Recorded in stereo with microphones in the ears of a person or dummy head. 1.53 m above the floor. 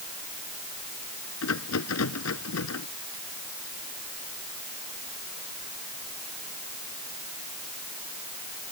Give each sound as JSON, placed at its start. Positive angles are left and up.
{"t": 1.4, "sound": "a rattle", "side_deg": 85}